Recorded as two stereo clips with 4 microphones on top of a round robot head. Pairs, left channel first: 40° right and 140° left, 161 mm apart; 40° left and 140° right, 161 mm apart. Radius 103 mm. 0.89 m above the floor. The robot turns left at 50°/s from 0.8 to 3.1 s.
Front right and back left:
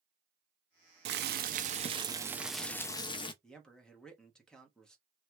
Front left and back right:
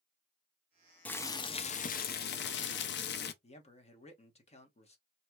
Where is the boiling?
125° left, 0.5 m; by 3.3 s 20° left, 0.5 m.